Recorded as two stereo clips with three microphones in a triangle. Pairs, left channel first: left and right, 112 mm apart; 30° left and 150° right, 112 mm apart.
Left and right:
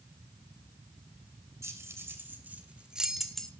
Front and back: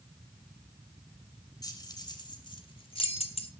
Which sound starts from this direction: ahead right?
Keys jangling, at 1.6 s.